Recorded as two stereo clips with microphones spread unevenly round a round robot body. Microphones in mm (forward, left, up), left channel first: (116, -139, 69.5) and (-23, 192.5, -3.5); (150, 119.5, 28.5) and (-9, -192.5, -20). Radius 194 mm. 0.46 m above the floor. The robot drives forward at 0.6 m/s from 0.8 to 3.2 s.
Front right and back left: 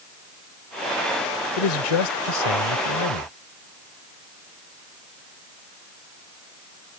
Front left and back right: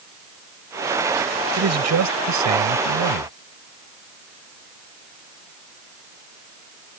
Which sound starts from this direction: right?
A man speaking, at 1.6 s.